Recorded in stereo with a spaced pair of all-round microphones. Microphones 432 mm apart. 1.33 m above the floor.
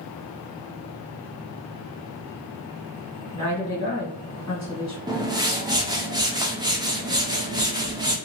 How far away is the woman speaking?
About 1.5 m.